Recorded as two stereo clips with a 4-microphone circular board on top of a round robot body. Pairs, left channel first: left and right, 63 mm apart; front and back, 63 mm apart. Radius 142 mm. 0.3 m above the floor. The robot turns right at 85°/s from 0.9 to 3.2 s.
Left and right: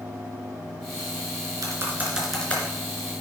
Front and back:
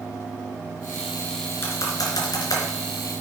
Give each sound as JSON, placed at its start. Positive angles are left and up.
{"t": 1.6, "sound": "typing on a keyboard", "azimuth_deg": -60, "distance_m": 3.5}